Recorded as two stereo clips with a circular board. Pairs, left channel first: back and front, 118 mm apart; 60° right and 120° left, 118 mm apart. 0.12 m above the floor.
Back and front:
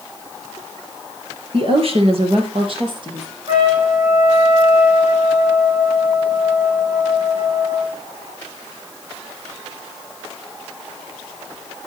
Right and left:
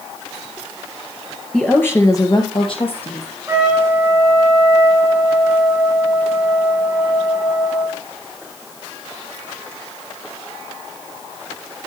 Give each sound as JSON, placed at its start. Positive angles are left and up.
{"t": 1.5, "sound": "a woman speaking", "azimuth_deg": 20, "distance_m": 2.0}
{"t": 3.5, "sound": "a trumpet", "azimuth_deg": 50, "distance_m": 3.5}